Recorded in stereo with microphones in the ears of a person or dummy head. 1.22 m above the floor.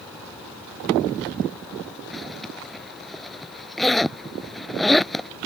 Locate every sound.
2.1 s a zipper: centre (ahead or behind)